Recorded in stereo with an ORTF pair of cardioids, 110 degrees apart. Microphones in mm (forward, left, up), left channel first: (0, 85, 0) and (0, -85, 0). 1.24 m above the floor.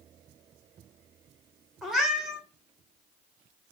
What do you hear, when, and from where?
1.8 s a cat meowing: straight ahead, 1.3 m